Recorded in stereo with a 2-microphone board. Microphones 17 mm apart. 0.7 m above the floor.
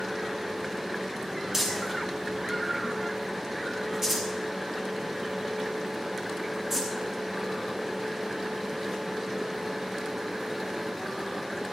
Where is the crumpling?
15° right (ahead or behind), 6.5 m.